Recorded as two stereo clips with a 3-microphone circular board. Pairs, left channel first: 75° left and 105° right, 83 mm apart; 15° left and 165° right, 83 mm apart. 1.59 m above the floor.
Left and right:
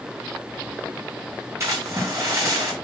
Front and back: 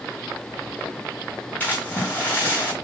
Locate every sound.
1.6 s a splash: 50° right, 6 m